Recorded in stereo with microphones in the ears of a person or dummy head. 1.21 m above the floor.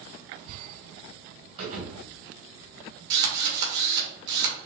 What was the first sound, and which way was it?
A thud, 45° right (ahead or behind).